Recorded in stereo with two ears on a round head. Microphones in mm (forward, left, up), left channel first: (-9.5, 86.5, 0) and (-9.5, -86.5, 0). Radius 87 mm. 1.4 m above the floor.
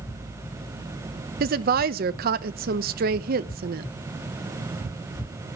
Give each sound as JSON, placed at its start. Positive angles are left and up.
{"t": 1.4, "sound": "a woman speaking", "side_deg": -50, "distance_m": 0.9}